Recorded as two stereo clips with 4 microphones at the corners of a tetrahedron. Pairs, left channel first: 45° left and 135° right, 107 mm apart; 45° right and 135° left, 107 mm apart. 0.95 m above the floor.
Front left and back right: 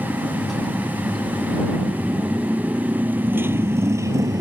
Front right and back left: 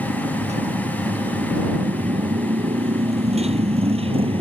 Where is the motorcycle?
130° left; by 4.4 s 170° left.